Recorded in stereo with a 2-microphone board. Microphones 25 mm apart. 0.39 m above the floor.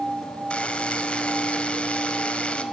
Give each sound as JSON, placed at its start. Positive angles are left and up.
{"t": 0.5, "sound": "a buzzer", "side_deg": 50, "distance_m": 1.6}